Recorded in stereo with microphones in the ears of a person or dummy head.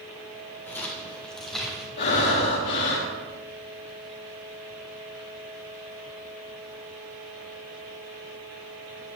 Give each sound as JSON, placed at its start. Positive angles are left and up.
{"t": 0.7, "sound": "footsteps", "side_deg": 10, "distance_m": 3.0}
{"t": 2.0, "sound": "breathing", "side_deg": 60, "distance_m": 3.0}